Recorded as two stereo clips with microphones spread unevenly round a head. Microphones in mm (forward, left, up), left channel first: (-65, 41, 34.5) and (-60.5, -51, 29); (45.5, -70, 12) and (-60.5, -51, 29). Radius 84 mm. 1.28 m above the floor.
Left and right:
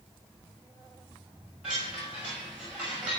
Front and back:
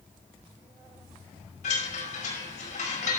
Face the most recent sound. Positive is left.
turn(degrees=-5)